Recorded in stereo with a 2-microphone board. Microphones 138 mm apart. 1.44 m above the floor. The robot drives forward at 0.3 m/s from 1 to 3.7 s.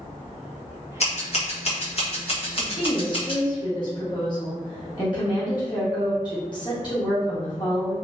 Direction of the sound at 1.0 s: 50° left (ahead or behind).